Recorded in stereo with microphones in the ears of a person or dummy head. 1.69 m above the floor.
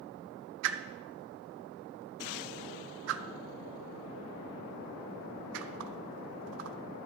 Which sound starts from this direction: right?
A whoosh, at 0.6 s.